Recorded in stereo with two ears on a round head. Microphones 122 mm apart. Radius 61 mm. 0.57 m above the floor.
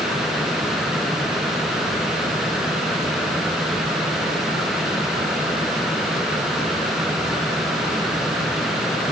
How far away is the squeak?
No squeak in this recording.